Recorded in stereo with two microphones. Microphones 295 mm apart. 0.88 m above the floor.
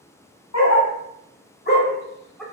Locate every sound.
0.5 s a dog barking: 60° left (ahead or behind), 1.4 m; by 2.4 s centre (ahead or behind), 0.8 m